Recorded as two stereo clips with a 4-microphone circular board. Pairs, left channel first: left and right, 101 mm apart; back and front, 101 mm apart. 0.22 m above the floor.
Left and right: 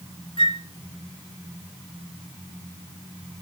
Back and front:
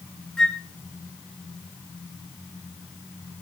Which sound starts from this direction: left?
A flute, at 0.4 s.